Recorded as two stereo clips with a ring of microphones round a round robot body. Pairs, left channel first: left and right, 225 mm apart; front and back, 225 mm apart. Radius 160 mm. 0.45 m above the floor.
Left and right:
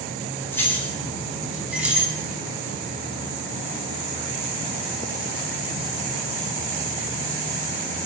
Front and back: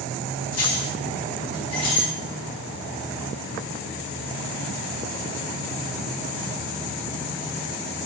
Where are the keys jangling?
10° left, 2.5 m; by 2.1 s 10° right, 2.5 m.